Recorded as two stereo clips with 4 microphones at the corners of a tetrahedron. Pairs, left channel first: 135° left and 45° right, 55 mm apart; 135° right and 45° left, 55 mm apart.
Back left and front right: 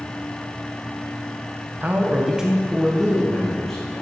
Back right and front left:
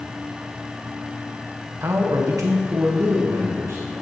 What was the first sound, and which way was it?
A man speaking, 10° left.